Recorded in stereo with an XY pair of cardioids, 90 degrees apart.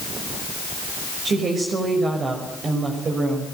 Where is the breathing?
No breathing in this recording.